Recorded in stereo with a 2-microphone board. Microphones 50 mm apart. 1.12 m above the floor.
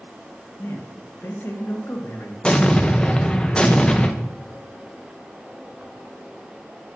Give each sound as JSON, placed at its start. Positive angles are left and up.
{"t": 0.6, "sound": "a man speaking", "side_deg": 60, "distance_m": 1.7}
{"t": 2.4, "sound": "an explosion", "side_deg": 20, "distance_m": 0.7}